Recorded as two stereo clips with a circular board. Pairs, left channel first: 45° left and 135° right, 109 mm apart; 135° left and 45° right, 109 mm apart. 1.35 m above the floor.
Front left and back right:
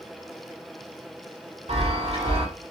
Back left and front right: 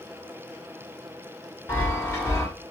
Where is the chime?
165° right, 1.5 m.